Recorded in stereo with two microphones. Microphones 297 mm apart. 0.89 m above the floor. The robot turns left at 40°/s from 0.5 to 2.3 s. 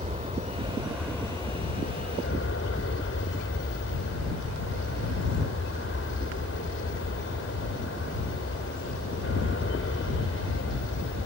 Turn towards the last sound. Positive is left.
turn(degrees=130)